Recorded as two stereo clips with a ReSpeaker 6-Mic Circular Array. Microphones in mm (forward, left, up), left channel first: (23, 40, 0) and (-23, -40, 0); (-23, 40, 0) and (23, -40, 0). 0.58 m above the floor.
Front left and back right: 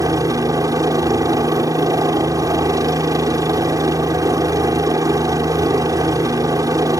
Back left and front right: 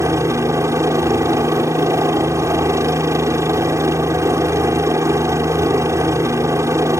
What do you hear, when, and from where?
0.0 s a helicopter: 100° right